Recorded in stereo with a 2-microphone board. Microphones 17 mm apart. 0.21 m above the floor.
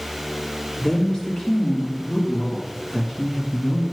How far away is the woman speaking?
About 2.5 m.